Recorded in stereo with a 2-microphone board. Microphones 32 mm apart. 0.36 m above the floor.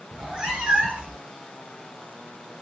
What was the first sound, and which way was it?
A cat meowing, 25° right (ahead or behind).